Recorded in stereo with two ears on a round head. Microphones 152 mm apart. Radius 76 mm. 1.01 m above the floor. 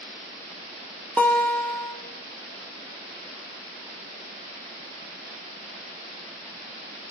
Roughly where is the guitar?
Centre.